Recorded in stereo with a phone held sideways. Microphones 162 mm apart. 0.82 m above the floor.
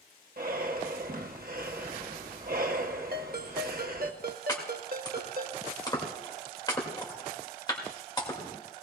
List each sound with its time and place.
0.4 s breathing: 65° right (ahead or behind), 0.9 m
3.1 s a ringtone: 65° right (ahead or behind), 0.9 m
4.5 s chopping: 25° left (ahead or behind), 2 m